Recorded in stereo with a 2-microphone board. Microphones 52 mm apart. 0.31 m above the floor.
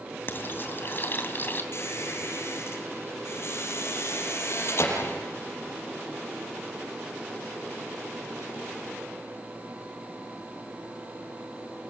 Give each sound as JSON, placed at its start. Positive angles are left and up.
{"t": 0.3, "sound": "frying", "side_deg": 40, "distance_m": 2.5}
{"t": 1.7, "sound": "a squeak", "side_deg": 55, "distance_m": 6.5}